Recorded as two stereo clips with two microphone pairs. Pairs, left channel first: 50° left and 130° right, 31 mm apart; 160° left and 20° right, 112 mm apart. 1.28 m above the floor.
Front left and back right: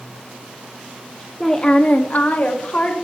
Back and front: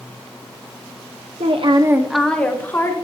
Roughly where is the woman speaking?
Ahead right.